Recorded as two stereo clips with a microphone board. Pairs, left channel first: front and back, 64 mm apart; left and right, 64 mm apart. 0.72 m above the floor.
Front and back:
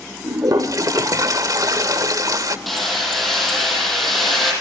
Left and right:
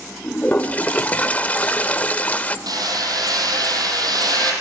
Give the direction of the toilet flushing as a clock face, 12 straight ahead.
7 o'clock.